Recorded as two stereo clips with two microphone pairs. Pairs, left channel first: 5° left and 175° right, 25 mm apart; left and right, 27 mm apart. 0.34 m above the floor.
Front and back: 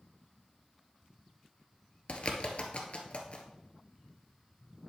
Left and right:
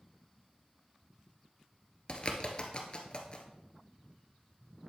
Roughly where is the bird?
Ahead left.